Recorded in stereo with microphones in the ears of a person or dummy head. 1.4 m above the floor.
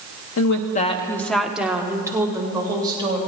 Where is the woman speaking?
75° left (ahead or behind), 0.7 m; by 3.2 s 20° right (ahead or behind), 3 m.